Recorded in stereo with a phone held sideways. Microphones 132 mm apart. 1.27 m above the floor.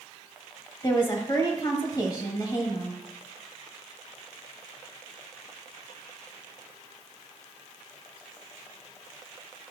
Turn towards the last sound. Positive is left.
turn(degrees=35)  # may be behind; listen again after turning